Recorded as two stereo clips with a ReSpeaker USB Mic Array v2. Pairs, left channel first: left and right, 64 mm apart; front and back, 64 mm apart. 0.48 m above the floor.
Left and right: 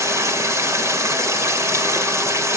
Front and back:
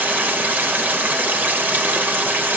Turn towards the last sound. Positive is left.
turn(degrees=-120)